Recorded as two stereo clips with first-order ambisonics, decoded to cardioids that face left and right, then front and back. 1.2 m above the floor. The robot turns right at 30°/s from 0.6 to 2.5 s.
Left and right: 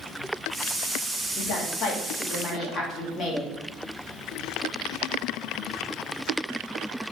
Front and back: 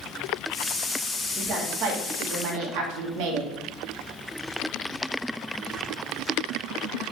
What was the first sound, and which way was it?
A woman speaking, 120° left.